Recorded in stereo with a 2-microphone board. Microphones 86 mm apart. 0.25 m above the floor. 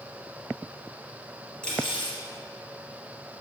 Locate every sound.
1.6 s cutlery clinking: 10° left (ahead or behind), 3.5 m